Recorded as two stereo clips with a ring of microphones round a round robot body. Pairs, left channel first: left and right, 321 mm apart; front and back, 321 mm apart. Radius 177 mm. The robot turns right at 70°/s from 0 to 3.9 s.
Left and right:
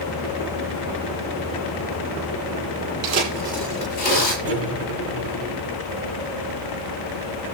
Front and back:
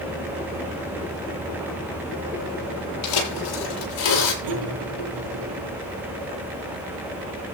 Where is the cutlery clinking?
135° right, 5 m.